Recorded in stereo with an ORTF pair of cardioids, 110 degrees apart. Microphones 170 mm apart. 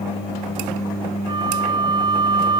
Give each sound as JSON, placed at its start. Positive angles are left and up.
{"t": 1.3, "sound": "a flute", "azimuth_deg": -25}